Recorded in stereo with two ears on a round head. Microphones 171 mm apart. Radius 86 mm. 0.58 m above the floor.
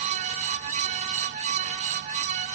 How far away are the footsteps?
I don't hear footsteps.